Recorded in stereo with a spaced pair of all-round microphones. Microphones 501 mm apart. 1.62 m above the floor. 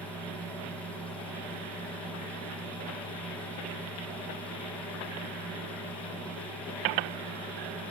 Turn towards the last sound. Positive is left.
turn(degrees=5)  # may be behind; listen again after turning